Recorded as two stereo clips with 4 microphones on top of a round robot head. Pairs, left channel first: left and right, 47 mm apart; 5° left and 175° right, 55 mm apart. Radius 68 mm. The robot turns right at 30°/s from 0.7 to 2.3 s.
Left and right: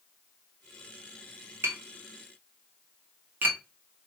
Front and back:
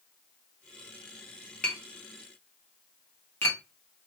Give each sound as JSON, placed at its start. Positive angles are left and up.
{"t": 1.6, "sound": "tapping", "azimuth_deg": -65, "distance_m": 1.8}